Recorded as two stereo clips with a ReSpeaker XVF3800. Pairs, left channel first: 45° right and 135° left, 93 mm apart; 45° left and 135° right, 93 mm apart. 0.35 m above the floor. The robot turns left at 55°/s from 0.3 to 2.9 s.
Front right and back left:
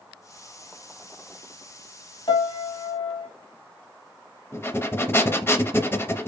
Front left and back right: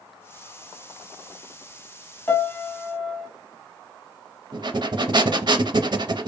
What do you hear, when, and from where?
2.3 s a piano: 20° right, 1.1 m; by 3.3 s 55° right, 1.1 m
4.5 s breathing: 105° right, 0.5 m